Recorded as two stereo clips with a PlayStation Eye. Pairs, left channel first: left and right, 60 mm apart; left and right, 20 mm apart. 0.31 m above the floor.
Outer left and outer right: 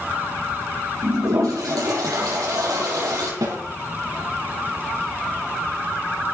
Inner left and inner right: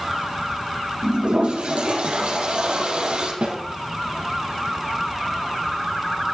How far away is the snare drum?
About 9 m.